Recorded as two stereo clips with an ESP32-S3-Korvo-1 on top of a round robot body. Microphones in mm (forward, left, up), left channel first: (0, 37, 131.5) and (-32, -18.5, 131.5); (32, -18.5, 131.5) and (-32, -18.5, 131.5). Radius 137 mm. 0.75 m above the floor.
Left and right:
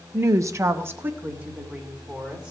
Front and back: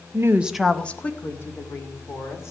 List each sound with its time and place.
0.1 s a woman speaking: 160° right, 0.7 m; by 2.5 s 45° right, 3 m